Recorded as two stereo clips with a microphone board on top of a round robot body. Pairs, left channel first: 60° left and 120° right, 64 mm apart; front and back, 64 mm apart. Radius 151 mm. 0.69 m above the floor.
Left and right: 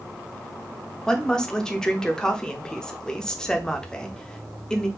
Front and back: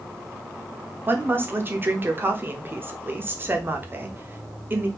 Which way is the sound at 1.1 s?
135° left.